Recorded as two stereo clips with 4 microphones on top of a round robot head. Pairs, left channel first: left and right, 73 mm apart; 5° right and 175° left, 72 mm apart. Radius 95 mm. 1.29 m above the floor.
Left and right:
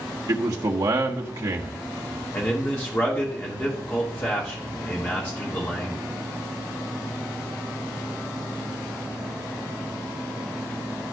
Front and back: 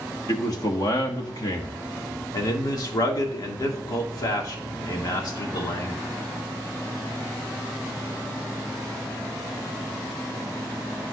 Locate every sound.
0.3 s a man speaking: 50° right, 1.3 m
2.3 s a man speaking: 25° left, 1.9 m